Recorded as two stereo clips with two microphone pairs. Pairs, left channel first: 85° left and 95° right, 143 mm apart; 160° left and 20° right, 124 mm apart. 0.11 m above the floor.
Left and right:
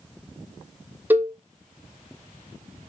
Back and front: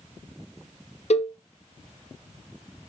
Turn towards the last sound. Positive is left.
turn(degrees=-175)